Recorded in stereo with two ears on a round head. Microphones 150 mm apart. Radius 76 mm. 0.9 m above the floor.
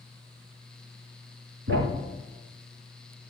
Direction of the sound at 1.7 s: 70° right (ahead or behind).